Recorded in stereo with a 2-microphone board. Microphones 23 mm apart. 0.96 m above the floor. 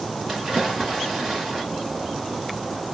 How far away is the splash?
About 1.4 m.